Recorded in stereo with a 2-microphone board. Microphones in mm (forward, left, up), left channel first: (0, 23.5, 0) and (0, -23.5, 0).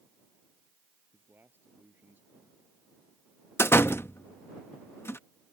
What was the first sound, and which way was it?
A man speaking, 50° right (ahead or behind).